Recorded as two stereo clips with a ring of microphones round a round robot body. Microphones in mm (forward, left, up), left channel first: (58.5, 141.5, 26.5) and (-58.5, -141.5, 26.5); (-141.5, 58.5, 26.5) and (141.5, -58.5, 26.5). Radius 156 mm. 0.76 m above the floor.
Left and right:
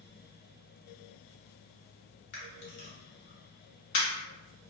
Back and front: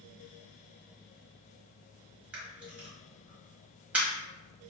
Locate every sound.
2.3 s a camera shutter: 65° left, 1.3 m